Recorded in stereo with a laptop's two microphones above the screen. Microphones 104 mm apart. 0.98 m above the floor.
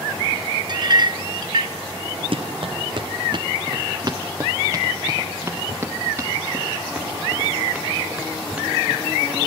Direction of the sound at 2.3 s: 60° right (ahead or behind).